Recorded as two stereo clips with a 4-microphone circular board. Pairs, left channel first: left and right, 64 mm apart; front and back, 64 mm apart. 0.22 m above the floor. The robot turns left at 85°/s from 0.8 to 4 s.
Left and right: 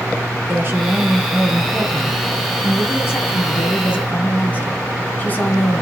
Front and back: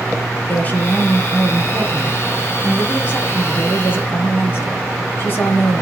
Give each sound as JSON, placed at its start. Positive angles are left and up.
{"t": 0.5, "sound": "a woman speaking", "azimuth_deg": -50, "distance_m": 1.7}